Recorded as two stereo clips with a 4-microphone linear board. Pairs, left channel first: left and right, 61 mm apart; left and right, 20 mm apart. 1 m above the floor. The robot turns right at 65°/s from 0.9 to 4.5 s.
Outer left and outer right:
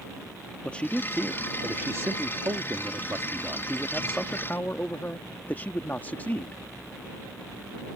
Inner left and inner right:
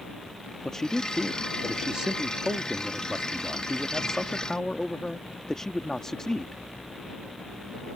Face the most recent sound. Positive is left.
turn(degrees=35)